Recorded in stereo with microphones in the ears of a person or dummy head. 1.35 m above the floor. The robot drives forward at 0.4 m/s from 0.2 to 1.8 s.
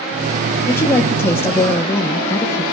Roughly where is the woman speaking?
Centre.